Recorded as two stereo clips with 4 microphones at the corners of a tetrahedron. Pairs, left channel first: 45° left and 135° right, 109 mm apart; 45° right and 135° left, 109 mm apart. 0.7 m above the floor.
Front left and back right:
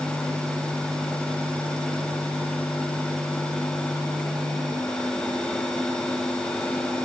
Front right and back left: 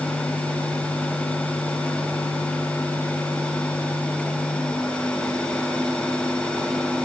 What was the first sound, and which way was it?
Only background noise.